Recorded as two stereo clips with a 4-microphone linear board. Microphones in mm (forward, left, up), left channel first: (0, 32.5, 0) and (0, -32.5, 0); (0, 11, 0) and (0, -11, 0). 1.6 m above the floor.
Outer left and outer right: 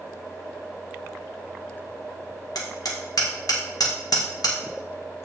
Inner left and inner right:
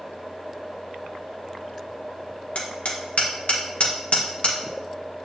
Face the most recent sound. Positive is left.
turn(degrees=75)  # may be behind; listen again after turning